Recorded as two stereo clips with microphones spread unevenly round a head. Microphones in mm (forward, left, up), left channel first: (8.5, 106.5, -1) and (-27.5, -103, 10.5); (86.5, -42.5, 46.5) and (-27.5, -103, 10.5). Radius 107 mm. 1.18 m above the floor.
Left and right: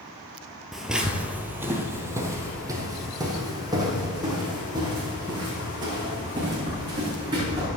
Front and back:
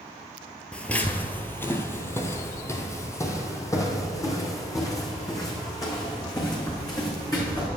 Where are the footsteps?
15° right, 1.3 m; by 7.7 s 30° right, 5.5 m.